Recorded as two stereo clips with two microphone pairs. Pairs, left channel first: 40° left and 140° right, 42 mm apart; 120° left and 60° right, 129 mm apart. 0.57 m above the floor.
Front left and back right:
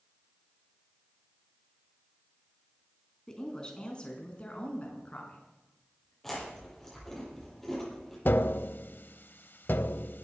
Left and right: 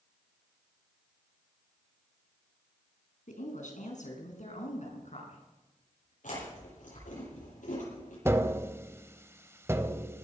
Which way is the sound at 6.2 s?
120° left.